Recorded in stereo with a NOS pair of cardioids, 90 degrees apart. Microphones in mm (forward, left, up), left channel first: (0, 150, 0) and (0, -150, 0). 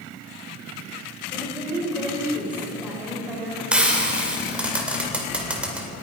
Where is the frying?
5° right, 2 m.